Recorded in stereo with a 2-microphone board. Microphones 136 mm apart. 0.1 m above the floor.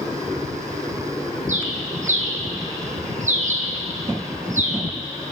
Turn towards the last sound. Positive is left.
turn(degrees=-65)  # may be behind; listen again after turning